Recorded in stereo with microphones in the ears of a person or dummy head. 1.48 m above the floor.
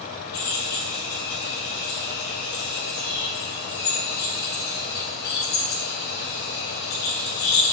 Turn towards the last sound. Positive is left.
turn(degrees=55)  # may be behind; listen again after turning